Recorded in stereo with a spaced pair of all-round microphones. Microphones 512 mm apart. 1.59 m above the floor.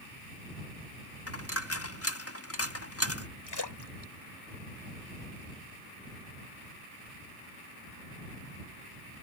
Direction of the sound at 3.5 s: 50° left (ahead or behind).